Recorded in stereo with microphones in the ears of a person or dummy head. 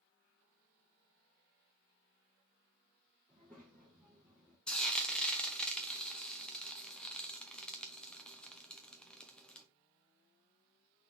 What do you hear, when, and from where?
3.3 s a child speaking: 5° right (ahead or behind), 1.5 m
4.7 s frying: centre (ahead or behind), 0.7 m